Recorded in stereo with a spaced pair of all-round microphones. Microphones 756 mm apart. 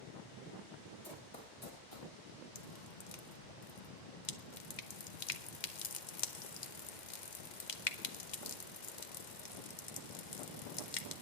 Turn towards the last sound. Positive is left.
turn(degrees=70)  # may be behind; listen again after turning